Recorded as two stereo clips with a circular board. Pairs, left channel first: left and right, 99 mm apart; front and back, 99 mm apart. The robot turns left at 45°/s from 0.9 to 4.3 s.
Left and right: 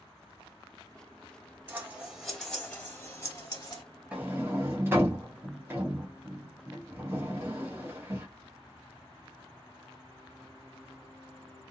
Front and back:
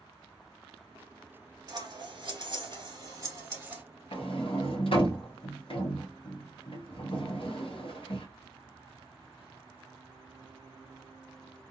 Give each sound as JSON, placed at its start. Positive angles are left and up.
{"t": 1.7, "sound": "scissors", "azimuth_deg": -150, "distance_m": 1.0}
{"t": 4.1, "sound": "a sliding door", "azimuth_deg": -15, "distance_m": 0.8}